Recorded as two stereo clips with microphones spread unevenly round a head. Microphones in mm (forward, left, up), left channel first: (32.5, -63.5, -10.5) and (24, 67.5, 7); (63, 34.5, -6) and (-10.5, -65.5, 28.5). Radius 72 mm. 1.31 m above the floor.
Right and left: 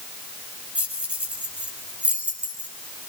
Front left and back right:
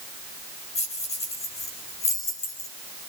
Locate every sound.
0.8 s keys jangling: 15° left, 6 m